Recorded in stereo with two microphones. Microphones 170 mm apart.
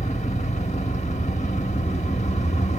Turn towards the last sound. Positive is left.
turn(degrees=40)  # may be behind; listen again after turning